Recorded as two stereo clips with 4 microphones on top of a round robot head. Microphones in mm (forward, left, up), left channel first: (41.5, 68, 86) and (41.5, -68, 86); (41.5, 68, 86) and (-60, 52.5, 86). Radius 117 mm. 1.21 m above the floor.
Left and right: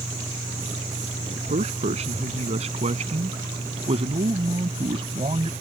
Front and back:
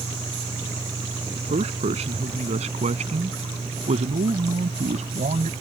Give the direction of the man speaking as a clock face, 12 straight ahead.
5 o'clock.